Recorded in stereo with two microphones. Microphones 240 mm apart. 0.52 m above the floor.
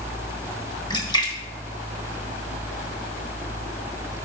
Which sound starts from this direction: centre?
A splash, at 0.9 s.